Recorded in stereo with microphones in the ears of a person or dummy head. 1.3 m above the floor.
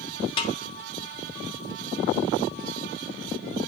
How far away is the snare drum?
About 1.3 m.